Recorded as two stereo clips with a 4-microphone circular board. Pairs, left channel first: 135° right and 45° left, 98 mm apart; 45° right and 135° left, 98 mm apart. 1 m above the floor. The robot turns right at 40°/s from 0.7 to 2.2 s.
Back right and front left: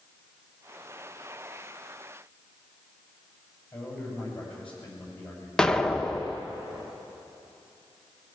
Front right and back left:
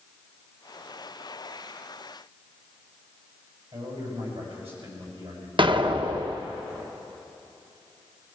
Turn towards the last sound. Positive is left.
turn(degrees=145)